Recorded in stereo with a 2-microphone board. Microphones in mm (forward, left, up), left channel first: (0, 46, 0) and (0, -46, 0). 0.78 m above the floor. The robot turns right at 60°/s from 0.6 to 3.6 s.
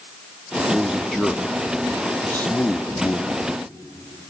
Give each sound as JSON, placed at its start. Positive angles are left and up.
{"t": 0.7, "sound": "a man speaking", "side_deg": -10, "distance_m": 0.7}